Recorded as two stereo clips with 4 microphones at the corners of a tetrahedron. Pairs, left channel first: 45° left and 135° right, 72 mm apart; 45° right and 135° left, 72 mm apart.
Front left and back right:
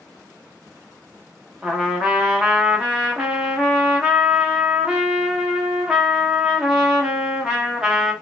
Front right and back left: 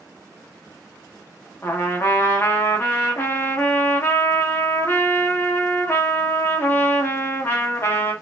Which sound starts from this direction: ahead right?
A trumpet, at 1.6 s.